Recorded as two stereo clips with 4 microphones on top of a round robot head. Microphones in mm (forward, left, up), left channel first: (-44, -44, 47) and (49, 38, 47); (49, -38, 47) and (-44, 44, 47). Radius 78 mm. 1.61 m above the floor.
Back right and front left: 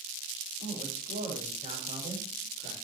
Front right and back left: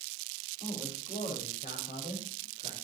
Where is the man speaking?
5° left, 8 m; by 2.7 s 10° right, 7 m.